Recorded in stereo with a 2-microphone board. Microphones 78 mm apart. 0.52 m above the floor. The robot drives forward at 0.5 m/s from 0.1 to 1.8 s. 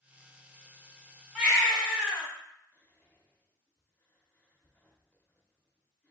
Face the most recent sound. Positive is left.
turn(degrees=20)  # may be behind; listen again after turning